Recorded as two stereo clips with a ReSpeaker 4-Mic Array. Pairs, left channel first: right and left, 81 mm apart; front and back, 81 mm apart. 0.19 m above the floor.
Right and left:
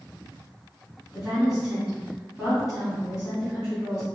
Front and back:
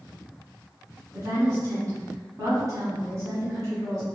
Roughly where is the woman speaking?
Behind.